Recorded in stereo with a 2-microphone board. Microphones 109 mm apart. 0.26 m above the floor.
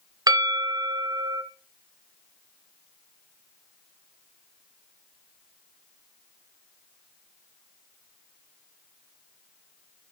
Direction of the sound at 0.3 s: 35° right (ahead or behind).